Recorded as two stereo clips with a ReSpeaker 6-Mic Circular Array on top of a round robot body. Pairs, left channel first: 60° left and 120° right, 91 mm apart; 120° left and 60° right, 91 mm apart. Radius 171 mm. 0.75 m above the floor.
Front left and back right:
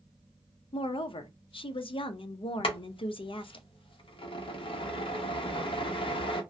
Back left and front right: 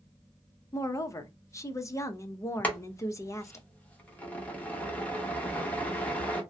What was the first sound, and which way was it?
A woman speaking, 65° left.